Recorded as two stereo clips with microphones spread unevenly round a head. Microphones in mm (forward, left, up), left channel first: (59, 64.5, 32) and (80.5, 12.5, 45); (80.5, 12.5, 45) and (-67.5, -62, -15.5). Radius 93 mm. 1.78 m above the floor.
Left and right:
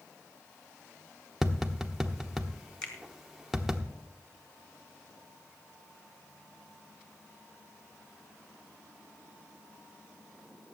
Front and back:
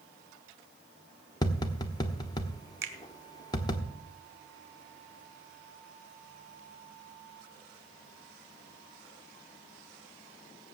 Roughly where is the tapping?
Ahead.